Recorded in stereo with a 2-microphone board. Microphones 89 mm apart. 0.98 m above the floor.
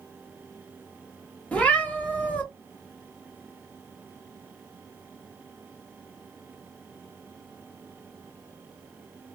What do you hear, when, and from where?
1.5 s a cat meowing: 15° left (ahead or behind), 0.7 m